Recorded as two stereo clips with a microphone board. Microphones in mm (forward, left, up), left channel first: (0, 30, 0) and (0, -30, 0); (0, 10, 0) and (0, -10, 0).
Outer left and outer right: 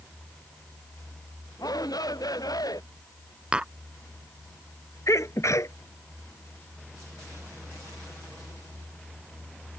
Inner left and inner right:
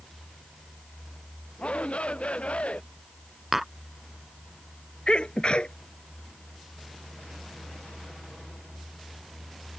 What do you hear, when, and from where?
1.6 s a shout: 85° left
3.5 s tapping: 15° right (ahead or behind)
5.1 s a sneeze: 55° left (ahead or behind)